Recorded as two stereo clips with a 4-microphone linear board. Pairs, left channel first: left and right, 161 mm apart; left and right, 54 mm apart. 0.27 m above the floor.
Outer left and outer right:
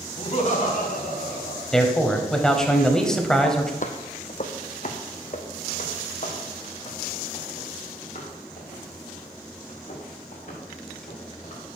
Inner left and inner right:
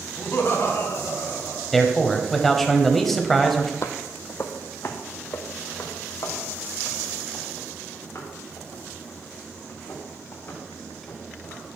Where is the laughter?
35° left (ahead or behind), 1.4 m; by 1.6 s 70° left (ahead or behind), 3.5 m.